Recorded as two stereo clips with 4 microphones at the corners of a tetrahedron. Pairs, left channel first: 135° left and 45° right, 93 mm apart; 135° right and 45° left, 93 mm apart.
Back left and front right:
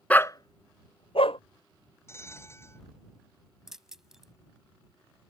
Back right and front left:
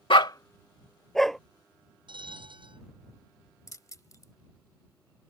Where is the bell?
75° left.